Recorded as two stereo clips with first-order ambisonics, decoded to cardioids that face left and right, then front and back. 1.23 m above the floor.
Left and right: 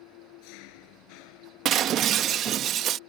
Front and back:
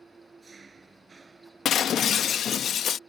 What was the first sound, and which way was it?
An engine running, 105° left.